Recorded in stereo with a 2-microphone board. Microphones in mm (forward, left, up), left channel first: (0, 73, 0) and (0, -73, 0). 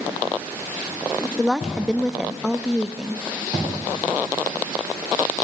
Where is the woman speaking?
Centre (ahead or behind), 0.6 m.